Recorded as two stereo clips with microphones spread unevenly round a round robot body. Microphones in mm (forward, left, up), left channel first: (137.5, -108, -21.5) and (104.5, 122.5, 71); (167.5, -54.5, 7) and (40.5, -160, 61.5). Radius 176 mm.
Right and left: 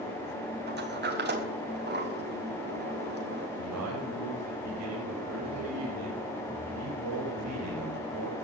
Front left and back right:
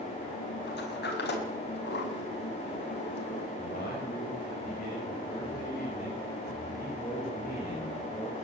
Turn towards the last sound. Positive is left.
turn(degrees=115)